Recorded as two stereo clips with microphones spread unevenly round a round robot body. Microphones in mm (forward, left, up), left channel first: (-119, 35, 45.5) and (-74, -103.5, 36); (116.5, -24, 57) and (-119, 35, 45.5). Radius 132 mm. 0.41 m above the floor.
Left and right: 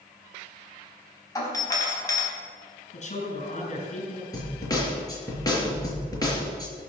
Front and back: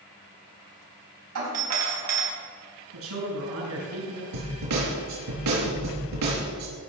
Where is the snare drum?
170° left, 5 m.